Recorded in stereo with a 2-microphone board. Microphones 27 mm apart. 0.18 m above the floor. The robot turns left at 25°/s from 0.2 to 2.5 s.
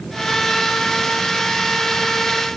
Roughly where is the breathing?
No breathing in this recording.